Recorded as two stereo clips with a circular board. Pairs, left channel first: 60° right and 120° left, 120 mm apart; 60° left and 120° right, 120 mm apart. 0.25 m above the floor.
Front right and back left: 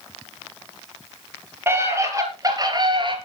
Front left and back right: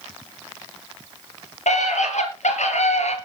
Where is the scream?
50° left, 5 m; by 3.2 s 75° left, 4 m.